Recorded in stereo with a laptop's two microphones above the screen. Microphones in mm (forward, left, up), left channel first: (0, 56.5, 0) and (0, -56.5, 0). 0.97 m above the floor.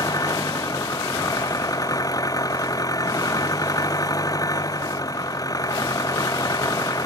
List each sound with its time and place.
0.0 s an engine running: 30° left (ahead or behind)